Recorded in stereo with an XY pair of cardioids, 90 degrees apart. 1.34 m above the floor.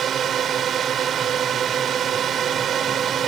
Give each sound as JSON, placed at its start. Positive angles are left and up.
{"t": 0.0, "sound": "a drone", "azimuth_deg": -60}